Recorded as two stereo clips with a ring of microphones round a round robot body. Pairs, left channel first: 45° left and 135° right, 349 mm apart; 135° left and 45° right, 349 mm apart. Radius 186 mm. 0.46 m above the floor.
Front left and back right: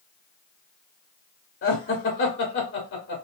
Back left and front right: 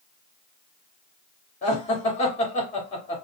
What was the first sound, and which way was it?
Laughter, 75° left.